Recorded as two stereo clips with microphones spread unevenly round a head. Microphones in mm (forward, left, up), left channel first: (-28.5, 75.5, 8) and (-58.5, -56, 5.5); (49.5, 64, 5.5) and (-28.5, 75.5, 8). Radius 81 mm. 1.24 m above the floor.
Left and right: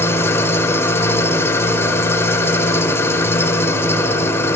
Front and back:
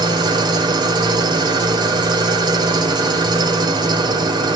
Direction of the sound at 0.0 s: 150° left.